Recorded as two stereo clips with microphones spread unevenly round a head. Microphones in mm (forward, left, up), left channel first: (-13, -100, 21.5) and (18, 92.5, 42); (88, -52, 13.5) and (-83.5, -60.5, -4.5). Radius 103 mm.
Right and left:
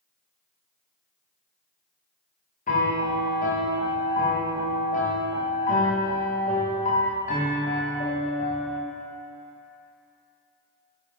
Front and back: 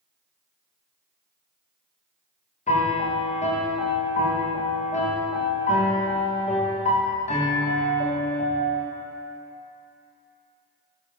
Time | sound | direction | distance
2.7 | a piano | 50° right | 1.7 m